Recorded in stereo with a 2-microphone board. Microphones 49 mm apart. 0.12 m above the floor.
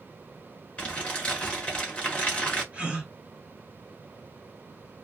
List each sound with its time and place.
0.8 s crumpling: 20° left (ahead or behind), 1.7 m
2.7 s a gasp: 25° right (ahead or behind), 1.9 m